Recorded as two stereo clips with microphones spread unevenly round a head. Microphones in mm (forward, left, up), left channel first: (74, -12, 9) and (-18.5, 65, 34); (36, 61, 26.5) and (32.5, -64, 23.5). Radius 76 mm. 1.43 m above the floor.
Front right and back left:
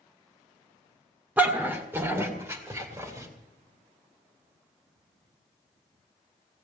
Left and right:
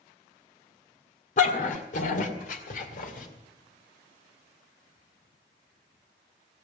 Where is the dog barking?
70° left, 1.8 m; by 3.3 s 80° left, 3 m.